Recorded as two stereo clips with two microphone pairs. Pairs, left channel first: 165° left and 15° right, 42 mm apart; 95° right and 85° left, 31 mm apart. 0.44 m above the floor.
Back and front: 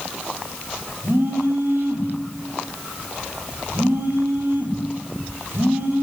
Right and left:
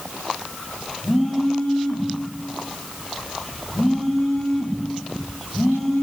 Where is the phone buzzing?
20° right, 7 m.